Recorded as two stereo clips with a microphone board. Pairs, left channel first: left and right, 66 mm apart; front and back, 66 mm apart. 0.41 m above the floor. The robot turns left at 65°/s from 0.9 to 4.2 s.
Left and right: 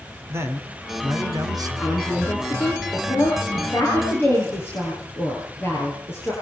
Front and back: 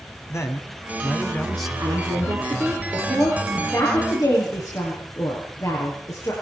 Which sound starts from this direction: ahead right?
A man speaking, at 0.3 s.